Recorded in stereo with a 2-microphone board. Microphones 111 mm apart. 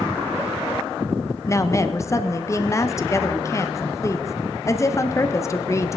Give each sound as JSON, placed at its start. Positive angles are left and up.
{"t": 1.5, "sound": "a woman speaking", "side_deg": 25, "distance_m": 1.0}